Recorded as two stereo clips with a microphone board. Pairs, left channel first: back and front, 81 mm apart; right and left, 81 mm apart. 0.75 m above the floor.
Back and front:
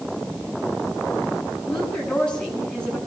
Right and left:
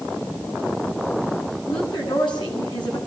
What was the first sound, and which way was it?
A woman speaking, 100° right.